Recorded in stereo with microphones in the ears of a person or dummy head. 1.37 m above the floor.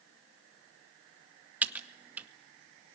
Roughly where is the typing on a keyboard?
Centre.